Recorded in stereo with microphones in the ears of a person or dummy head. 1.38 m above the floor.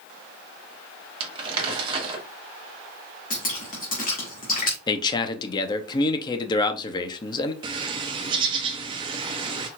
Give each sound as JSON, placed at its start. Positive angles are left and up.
{"t": 1.2, "sound": "crumpling", "side_deg": -35, "distance_m": 1.4}
{"t": 3.3, "sound": "dripping", "side_deg": 45, "distance_m": 1.7}
{"t": 4.9, "sound": "a man speaking", "side_deg": 20, "distance_m": 0.8}
{"t": 7.6, "sound": "a bird", "side_deg": -25, "distance_m": 0.6}